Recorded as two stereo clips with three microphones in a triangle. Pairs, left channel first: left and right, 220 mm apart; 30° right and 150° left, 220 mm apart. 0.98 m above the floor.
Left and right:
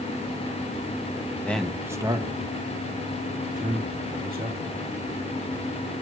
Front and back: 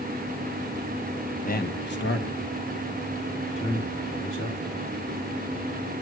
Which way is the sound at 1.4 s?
10° left.